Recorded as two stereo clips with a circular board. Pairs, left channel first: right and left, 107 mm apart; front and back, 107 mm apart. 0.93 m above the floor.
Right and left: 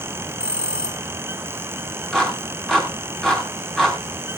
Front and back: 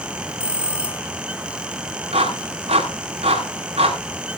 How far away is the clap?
About 4.5 m.